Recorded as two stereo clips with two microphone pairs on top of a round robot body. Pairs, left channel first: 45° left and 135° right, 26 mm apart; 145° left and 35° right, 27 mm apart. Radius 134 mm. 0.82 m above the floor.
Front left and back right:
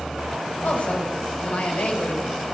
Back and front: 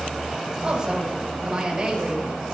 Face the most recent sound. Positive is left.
turn(degrees=35)